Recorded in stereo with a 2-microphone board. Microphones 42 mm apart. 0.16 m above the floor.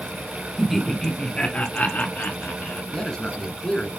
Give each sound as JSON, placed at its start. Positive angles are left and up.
{"t": 0.6, "sound": "laughter", "side_deg": -5, "distance_m": 1.2}
{"t": 2.9, "sound": "a man speaking", "side_deg": 20, "distance_m": 2.0}